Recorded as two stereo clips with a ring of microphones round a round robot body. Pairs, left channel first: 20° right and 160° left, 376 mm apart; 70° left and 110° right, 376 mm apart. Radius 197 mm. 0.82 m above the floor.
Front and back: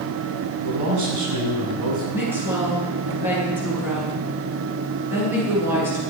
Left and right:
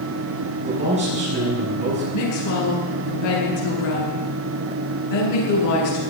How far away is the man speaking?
About 8.5 m.